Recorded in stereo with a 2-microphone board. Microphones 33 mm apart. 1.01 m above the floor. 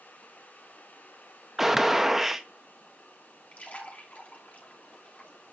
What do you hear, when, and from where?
1.6 s a gunshot: 5° right (ahead or behind), 1.1 m
3.5 s a splash: 45° left (ahead or behind), 3 m